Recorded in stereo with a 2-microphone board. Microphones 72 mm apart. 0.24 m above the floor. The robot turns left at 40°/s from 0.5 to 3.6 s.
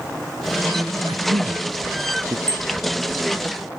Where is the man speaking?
85° right; by 2.4 s 40° right (ahead or behind).